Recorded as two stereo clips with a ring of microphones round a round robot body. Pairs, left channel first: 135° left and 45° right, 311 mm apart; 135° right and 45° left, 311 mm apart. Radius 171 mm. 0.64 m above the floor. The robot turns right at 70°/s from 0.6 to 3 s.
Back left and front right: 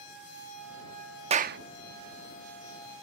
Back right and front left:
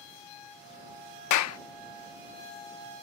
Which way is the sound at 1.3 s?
115° right.